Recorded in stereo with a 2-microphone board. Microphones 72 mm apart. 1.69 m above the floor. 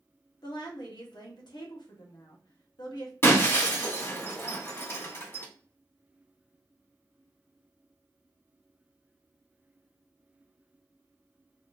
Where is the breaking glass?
35° left (ahead or behind), 1.8 m.